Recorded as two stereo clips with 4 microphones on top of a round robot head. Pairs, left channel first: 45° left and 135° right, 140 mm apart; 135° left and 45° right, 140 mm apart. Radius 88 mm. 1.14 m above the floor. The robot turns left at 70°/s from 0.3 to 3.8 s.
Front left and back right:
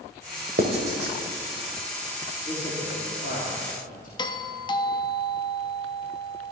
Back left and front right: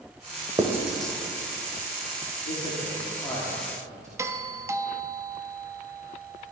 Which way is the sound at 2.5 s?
115° left.